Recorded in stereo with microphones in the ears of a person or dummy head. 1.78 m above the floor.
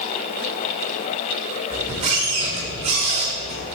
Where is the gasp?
No gasp in this recording.